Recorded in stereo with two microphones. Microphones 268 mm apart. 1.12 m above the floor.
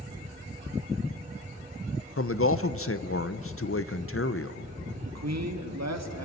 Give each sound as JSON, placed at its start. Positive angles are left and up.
{"t": 2.2, "sound": "a man speaking", "side_deg": 55, "distance_m": 0.6}
{"t": 5.0, "sound": "a man speaking", "side_deg": -75, "distance_m": 1.9}